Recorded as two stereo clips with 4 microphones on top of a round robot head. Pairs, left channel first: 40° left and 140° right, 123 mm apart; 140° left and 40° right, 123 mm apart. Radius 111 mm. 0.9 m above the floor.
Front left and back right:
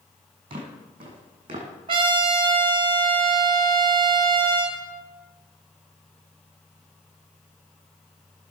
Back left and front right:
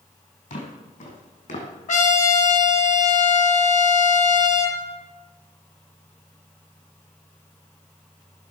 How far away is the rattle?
No rattle in this recording.